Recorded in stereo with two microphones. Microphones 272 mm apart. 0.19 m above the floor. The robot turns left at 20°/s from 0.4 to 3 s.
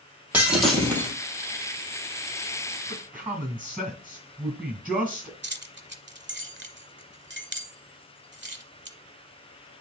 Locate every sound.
0.3 s breaking glass: 5° right (ahead or behind), 2.5 m; by 1.1 s 10° left (ahead or behind), 2.5 m
2.9 s a man speaking: 5° right (ahead or behind), 1.9 m
5.4 s keys jangling: 40° right (ahead or behind), 0.8 m